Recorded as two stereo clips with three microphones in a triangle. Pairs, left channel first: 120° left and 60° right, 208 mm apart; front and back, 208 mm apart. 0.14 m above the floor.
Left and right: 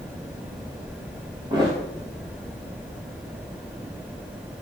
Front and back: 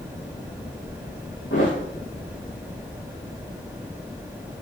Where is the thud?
10° left, 6.5 m.